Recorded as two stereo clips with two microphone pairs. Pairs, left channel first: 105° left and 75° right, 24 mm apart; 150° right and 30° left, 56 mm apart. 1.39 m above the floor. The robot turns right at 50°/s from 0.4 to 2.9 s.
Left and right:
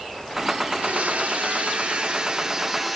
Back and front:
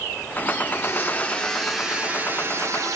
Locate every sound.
0.7 s a blender: 105° right, 0.6 m; by 3.0 s 5° left, 0.6 m